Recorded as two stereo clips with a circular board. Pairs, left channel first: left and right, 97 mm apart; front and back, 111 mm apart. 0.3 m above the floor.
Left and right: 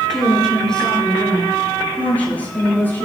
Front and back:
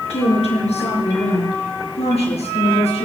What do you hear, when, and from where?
0.1 s a woman speaking: 5° left, 5 m; by 3.1 s 20° left, 6.5 m